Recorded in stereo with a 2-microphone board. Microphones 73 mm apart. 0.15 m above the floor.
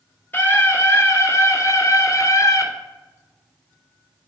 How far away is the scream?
About 2.5 m.